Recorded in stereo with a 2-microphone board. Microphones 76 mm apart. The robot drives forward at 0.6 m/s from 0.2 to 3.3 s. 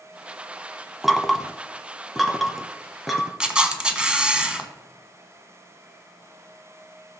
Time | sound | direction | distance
1.0 | knocking | centre (ahead or behind) | 0.8 m
3.4 | a camera shutter | 10° right (ahead or behind) | 1.1 m